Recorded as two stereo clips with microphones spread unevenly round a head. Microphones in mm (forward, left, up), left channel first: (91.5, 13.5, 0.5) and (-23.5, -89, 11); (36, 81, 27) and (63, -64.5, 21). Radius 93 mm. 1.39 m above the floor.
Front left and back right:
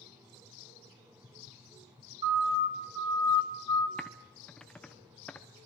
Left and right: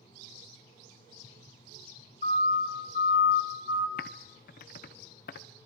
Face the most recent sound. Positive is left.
turn(degrees=125)